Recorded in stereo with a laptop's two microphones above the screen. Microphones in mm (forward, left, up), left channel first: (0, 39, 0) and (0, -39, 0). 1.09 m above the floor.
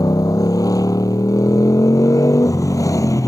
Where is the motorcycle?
50° left (ahead or behind); by 3.3 s 45° left (ahead or behind).